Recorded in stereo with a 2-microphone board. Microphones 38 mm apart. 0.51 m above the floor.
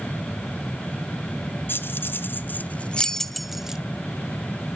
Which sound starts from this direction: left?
Keys jangling, at 1.7 s.